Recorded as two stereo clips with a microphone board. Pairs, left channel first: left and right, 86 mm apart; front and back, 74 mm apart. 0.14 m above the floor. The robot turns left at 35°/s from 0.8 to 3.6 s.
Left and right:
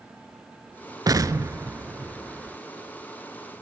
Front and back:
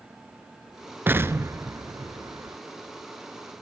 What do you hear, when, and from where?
1.1 s an explosion: 120° right, 0.6 m; by 2.6 s 175° right, 0.6 m